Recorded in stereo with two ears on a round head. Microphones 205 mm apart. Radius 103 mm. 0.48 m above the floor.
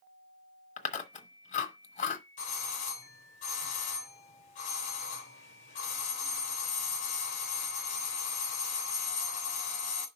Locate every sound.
0.8 s chewing: 30° left (ahead or behind), 1.0 m
2.4 s a doorbell: 35° left (ahead or behind), 3 m